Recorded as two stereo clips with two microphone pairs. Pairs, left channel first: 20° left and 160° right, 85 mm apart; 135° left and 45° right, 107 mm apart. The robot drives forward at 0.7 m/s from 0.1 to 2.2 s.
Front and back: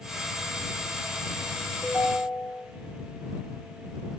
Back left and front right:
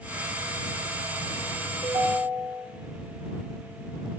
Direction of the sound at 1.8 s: 70° right.